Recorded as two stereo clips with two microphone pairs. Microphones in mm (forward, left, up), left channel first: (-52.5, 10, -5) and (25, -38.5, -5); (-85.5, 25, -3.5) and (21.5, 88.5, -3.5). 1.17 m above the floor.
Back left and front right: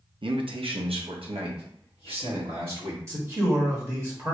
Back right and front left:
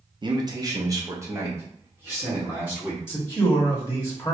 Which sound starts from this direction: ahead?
A man speaking, at 0.2 s.